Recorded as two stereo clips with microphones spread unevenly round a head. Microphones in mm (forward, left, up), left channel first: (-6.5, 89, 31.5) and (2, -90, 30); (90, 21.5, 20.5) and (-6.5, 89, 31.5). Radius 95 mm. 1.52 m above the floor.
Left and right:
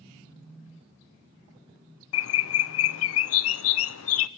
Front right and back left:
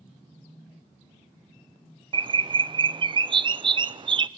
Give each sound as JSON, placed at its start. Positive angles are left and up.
{"t": 2.1, "sound": "a bird", "azimuth_deg": 95, "distance_m": 0.8}